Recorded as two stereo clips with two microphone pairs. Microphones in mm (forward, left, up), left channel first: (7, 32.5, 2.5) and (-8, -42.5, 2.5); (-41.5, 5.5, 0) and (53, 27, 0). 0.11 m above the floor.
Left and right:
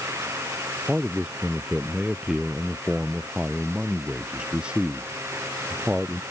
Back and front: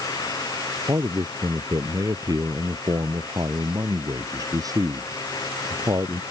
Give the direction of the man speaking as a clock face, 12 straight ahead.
1 o'clock.